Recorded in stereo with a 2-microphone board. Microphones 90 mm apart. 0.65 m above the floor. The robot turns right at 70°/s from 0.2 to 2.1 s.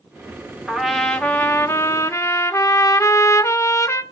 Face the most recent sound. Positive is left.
turn(degrees=85)